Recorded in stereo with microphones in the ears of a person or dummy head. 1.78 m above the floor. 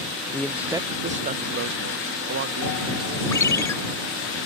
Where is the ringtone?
15° left (ahead or behind).